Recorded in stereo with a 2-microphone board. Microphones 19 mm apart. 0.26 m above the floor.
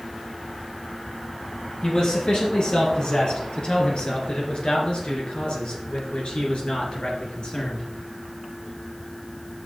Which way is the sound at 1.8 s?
55° left (ahead or behind).